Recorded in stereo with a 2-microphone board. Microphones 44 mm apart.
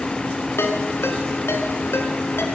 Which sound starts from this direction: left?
A ringtone, at 0.6 s.